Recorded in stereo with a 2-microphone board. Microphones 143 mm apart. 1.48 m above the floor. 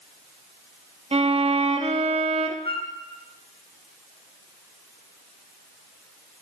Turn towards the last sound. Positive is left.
turn(degrees=40)  # may be behind; listen again after turning